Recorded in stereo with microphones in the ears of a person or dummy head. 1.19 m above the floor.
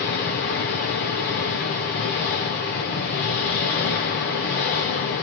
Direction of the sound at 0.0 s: 40° left (ahead or behind).